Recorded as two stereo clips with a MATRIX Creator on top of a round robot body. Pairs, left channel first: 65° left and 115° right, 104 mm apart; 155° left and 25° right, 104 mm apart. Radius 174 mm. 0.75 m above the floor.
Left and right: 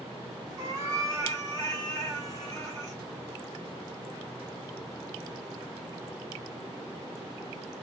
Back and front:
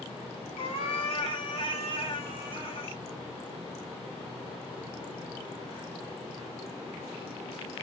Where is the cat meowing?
165° right, 1.6 m.